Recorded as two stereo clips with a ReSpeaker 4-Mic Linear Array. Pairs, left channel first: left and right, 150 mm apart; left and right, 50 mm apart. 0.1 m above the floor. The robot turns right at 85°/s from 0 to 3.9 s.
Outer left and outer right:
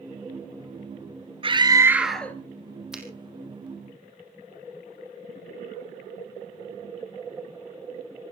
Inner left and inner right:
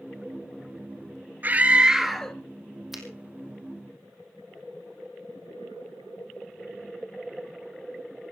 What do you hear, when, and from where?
1.4 s a scream: 60° right, 1.7 m; by 2.4 s 20° left, 1.7 m
2.9 s a finger snap: 5° right (ahead or behind), 3 m; by 3.0 s 15° right (ahead or behind), 3 m